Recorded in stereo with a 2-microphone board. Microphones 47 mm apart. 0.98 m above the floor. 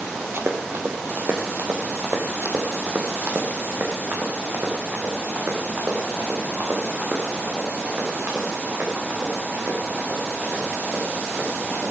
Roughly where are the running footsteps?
Right.